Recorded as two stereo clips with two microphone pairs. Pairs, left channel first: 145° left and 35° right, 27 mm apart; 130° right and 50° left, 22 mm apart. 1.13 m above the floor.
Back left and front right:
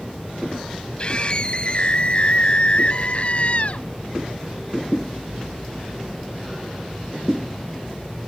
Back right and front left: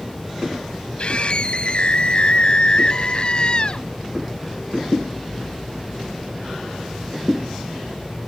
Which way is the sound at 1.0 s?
165° right.